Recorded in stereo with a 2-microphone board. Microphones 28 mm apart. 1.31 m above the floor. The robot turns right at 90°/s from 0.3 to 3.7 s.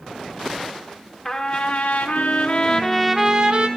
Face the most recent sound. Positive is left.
turn(degrees=-120)